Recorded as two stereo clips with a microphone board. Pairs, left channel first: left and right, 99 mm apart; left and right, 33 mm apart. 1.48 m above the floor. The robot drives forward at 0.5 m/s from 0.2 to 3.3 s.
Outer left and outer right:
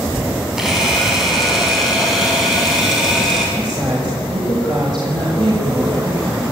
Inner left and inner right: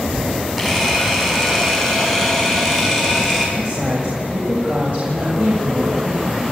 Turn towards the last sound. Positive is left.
turn(degrees=-45)  # may be behind; listen again after turning